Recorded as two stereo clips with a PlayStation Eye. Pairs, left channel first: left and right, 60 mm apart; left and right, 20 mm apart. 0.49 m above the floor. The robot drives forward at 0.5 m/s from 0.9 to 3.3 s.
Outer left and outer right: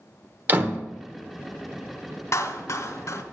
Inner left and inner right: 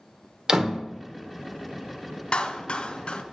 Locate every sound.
0.5 s a door slam: 30° right (ahead or behind), 1.2 m
2.3 s a clap: 55° left (ahead or behind), 1.5 m; by 3.2 s 50° left (ahead or behind), 1.5 m